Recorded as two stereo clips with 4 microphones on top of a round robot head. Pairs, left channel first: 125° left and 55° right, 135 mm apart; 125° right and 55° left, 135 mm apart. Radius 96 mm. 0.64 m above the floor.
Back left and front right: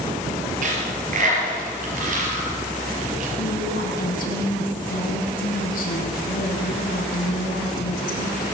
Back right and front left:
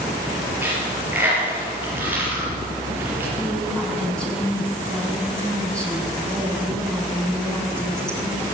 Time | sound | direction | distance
0.6 | a dropped coin | 25° right | 6.5 m
3.4 | a woman speaking | 150° left | 5.5 m